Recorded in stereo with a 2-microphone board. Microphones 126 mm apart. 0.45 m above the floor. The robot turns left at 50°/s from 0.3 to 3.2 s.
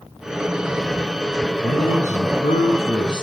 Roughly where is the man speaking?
Behind left.